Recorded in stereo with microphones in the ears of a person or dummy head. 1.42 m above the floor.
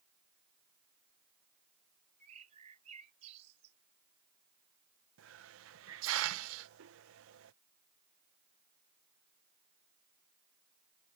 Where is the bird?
40° right (ahead or behind).